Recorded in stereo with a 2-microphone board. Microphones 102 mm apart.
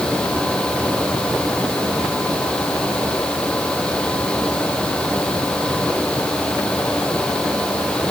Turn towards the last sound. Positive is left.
No sound to turn to.